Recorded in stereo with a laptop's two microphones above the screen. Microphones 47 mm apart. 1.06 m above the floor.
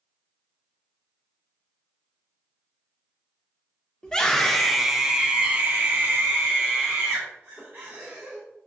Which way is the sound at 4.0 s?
15° left (ahead or behind).